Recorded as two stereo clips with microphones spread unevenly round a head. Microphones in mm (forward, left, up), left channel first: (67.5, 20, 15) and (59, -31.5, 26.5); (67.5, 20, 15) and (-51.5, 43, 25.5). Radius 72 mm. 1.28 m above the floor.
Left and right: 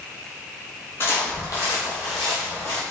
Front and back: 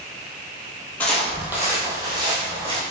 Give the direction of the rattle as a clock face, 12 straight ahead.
No rattle in this recording.